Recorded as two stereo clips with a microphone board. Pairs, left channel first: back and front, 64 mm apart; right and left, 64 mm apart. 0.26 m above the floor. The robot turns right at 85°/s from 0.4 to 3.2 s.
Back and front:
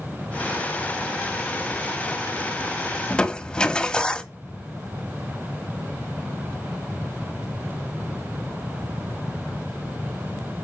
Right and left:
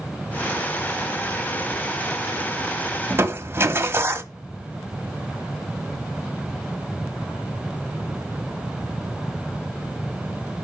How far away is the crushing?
About 1.1 m.